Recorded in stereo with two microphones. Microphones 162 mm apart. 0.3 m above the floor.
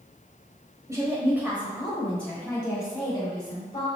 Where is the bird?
I don't hear a bird.